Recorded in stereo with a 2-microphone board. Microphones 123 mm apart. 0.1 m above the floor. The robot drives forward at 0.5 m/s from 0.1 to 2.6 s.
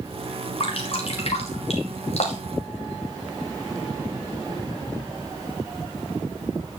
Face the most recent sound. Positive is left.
turn(degrees=60)  # may be behind; listen again after turning